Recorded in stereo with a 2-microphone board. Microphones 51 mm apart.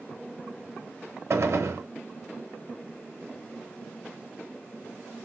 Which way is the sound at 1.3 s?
65° right (ahead or behind).